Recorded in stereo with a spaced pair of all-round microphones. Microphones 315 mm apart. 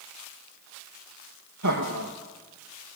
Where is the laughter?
65° right (ahead or behind), 2.5 m.